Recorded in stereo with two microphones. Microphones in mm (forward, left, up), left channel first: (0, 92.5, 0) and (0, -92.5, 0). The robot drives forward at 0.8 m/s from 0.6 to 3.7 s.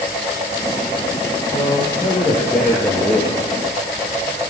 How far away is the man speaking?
About 9 m.